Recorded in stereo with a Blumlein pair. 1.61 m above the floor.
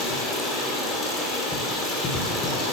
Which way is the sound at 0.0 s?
20° left.